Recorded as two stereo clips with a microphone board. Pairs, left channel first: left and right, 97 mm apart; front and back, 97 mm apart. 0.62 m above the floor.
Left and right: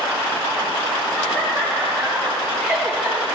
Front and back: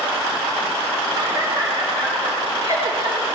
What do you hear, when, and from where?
1.2 s laughter: 160° left, 2.5 m; by 3.2 s 175° right, 3 m